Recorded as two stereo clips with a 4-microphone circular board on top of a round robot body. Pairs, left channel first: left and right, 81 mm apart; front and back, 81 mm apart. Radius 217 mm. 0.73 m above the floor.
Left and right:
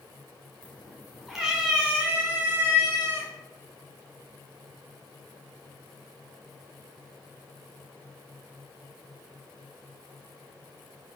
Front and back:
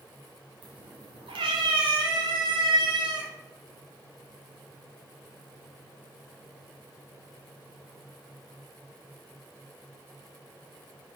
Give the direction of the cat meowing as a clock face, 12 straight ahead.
6 o'clock.